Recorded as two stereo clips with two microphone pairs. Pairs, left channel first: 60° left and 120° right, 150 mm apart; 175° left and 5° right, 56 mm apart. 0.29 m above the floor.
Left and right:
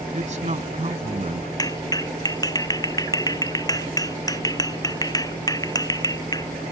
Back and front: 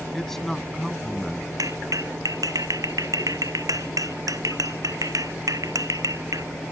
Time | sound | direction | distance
0.1 | a man speaking | 105° right | ?
1.6 | a clap | 10° right | ?